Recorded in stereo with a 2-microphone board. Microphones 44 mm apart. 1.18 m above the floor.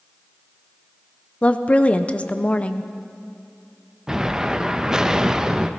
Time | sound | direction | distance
1.4 | a woman speaking | 30° left (ahead or behind) | 0.6 m
4.1 | an explosion | 15° right (ahead or behind) | 0.5 m